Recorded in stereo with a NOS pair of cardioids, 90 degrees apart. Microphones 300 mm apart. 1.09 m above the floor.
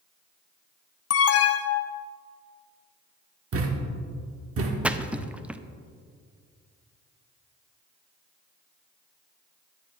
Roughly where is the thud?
Ahead right.